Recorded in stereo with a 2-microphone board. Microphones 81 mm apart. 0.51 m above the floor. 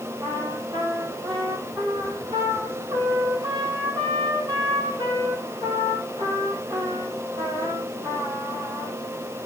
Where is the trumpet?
70° right (ahead or behind), 4.5 m.